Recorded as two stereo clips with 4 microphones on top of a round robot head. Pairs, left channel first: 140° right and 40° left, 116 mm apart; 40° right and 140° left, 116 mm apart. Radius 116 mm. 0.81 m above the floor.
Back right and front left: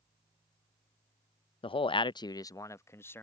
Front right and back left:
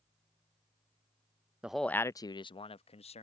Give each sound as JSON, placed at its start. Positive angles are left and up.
{"t": 1.6, "sound": "a man speaking", "azimuth_deg": -145}